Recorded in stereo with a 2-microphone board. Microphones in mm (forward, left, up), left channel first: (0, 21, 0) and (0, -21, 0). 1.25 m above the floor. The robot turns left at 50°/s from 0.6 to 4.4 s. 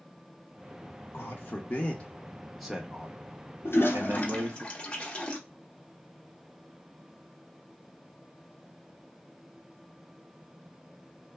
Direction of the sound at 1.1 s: 60° left (ahead or behind).